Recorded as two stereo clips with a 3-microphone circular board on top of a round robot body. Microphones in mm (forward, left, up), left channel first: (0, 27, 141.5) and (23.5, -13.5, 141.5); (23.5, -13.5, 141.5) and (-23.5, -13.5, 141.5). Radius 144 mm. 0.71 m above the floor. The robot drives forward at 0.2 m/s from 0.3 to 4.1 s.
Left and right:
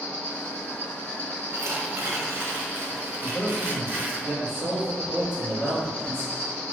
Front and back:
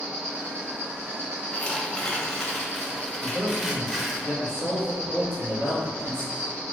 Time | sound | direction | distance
0.0 | an insect | 150° left | 2.0 m
1.5 | tearing paper | 65° right | 0.9 m
3.2 | a man speaking | 150° left | 1.9 m